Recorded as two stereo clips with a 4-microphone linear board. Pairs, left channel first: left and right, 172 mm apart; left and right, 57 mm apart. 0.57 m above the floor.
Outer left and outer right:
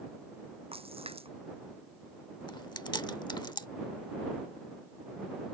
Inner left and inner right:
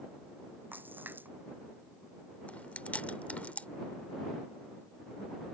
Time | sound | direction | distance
0.7 | a splash | 35° right (ahead or behind) | ?
2.5 | chewing | 25° left (ahead or behind) | ?